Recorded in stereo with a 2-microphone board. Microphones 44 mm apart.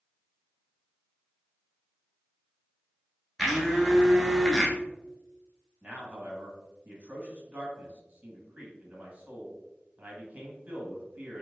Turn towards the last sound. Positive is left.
turn(degrees=-35)  # may be behind; listen again after turning